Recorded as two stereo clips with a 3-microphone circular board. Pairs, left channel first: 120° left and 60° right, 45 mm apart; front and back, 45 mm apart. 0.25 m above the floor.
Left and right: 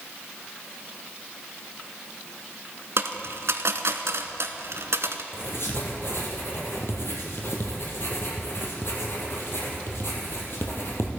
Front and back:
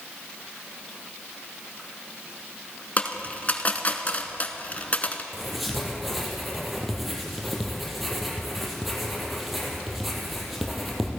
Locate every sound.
3.0 s a dropped coin: 55° right, 0.9 m
5.3 s writing: 90° left, 3 m